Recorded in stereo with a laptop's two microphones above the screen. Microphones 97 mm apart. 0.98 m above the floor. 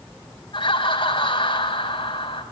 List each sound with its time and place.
0.5 s laughter: 60° left (ahead or behind), 4.5 m